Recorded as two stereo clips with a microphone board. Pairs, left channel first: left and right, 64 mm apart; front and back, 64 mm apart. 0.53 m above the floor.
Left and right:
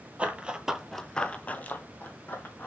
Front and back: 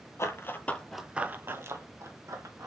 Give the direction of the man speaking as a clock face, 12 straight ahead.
No man speaking in this recording.